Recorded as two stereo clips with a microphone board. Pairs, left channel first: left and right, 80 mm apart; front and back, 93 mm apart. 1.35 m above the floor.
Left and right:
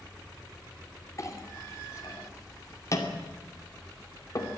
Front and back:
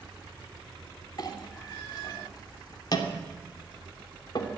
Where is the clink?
40° left, 2.5 m.